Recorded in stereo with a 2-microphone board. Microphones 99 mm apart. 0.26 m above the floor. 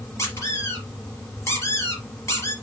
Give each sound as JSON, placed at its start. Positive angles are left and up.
{"t": 0.2, "sound": "a squeak", "side_deg": 30, "distance_m": 3.5}